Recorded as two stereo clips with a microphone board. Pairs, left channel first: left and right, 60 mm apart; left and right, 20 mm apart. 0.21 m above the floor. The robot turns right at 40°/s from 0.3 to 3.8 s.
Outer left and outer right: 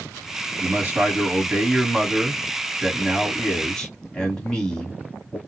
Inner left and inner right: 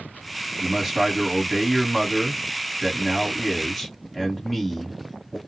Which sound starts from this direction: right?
A man speaking, at 0.6 s.